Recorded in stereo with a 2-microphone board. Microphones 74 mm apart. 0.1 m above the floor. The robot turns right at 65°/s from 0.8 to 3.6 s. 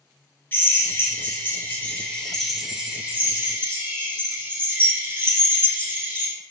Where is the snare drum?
I don't hear a snare drum.